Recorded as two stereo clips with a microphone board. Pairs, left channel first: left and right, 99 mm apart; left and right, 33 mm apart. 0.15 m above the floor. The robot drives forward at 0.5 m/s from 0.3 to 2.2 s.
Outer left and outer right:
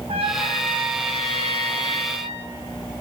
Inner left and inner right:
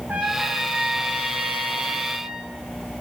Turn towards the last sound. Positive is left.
turn(degrees=-80)